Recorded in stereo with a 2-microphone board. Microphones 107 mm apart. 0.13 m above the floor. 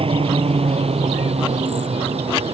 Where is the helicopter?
60° right (ahead or behind); by 2.5 s 70° right (ahead or behind).